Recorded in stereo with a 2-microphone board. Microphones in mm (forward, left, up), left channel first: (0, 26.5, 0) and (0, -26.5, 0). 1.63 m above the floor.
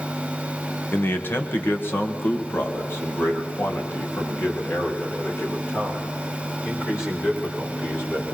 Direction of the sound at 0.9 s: 40° left (ahead or behind).